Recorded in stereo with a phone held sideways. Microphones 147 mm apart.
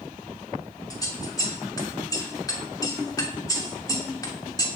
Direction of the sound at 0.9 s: 25° left (ahead or behind).